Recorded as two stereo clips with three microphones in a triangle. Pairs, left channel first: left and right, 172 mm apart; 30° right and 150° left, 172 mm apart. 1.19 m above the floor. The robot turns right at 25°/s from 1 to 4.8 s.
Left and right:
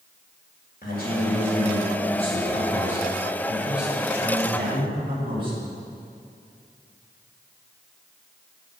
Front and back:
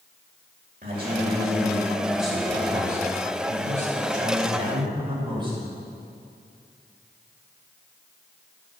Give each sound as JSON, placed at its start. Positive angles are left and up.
{"t": 0.8, "sound": "a man speaking", "azimuth_deg": 115, "distance_m": 6.0}